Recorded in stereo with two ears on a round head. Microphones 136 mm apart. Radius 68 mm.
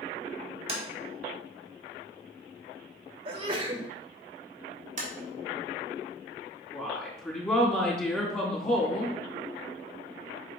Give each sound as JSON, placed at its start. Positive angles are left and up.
{"t": 0.7, "sound": "tapping", "side_deg": -40, "distance_m": 1.5}
{"t": 3.2, "sound": "a sneeze", "side_deg": -40, "distance_m": 1.8}
{"t": 5.0, "sound": "tapping", "side_deg": -50, "distance_m": 1.9}
{"t": 6.7, "sound": "a woman speaking", "side_deg": 15, "distance_m": 3.5}